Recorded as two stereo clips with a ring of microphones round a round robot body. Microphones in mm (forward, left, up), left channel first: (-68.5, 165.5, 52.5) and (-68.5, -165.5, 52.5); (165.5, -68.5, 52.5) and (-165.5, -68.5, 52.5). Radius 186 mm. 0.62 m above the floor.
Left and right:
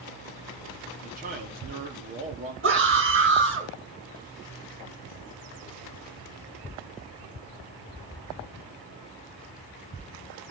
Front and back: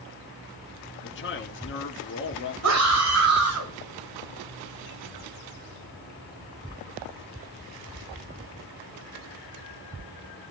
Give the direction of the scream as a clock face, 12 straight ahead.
5 o'clock.